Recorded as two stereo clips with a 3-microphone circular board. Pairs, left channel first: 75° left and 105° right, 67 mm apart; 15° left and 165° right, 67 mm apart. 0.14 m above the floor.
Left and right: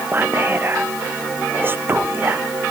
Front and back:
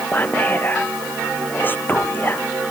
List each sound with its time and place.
0.1 s whispering: 45° right